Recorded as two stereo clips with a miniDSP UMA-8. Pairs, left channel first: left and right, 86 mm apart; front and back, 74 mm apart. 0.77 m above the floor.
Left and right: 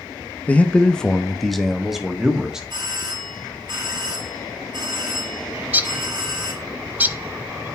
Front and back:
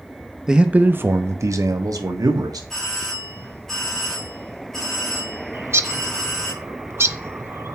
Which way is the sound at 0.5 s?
120° left.